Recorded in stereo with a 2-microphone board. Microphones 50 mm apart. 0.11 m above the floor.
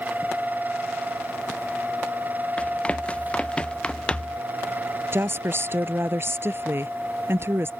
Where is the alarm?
No alarm in this recording.